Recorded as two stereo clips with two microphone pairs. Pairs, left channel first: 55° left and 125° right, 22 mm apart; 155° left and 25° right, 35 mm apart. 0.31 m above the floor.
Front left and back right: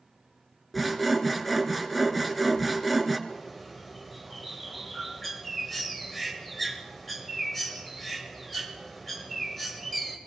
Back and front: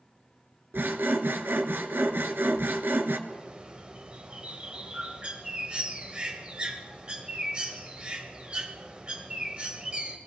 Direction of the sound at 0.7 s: 35° right.